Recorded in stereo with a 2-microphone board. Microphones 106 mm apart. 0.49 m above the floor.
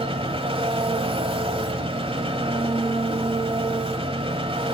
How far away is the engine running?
About 1.4 m.